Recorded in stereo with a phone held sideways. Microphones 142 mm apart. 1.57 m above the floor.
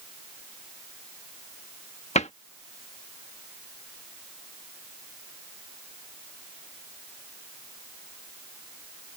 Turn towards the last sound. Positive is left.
turn(degrees=55)  # may be behind; listen again after turning